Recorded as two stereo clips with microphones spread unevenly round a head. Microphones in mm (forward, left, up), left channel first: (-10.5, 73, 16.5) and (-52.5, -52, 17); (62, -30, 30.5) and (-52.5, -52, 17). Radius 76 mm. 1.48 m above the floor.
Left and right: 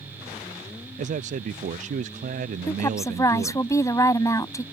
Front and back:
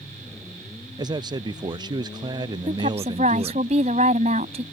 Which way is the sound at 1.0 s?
125° right.